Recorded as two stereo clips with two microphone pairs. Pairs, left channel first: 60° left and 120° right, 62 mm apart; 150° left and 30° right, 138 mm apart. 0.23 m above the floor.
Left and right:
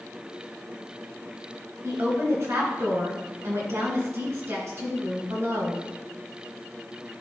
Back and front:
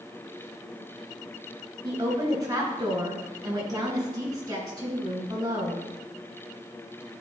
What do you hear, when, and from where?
1.8 s a woman speaking: 90° right, 2.5 m